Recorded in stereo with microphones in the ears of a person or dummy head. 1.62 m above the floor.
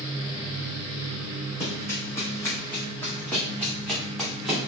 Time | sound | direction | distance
1.6 | running footsteps | 25° left (ahead or behind) | 4 m